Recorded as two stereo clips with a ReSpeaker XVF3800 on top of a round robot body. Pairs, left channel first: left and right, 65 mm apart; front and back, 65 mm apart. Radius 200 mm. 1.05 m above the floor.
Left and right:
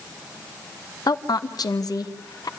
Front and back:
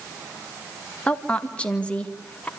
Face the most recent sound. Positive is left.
turn(degrees=75)